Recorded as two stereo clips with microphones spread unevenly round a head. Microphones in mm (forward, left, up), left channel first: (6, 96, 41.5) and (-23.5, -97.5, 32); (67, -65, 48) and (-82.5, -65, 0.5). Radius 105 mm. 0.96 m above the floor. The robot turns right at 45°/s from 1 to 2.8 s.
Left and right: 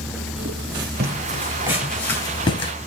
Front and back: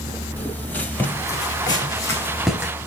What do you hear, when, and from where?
0.4 s footsteps: 70° right, 1.9 m; by 2.7 s 85° left, 1.0 m